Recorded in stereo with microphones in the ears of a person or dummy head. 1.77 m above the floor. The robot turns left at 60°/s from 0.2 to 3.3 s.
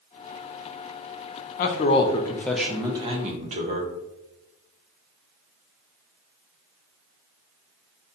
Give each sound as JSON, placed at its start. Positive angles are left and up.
{"t": 1.6, "sound": "a man speaking", "azimuth_deg": 60, "distance_m": 0.7}